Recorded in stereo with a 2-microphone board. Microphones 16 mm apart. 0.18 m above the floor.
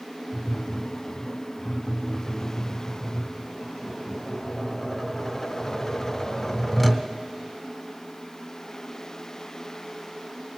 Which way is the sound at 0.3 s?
5° left (ahead or behind).